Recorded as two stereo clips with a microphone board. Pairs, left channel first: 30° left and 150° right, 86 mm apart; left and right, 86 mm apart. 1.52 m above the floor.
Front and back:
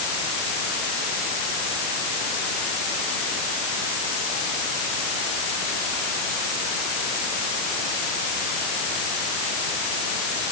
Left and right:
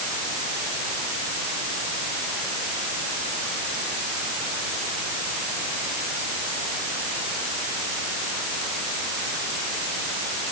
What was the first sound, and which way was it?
Only background noise.